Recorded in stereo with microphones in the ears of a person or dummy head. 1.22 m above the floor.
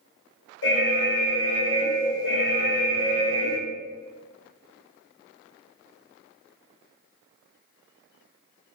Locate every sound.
0.6 s an alarm: 60° left (ahead or behind), 0.7 m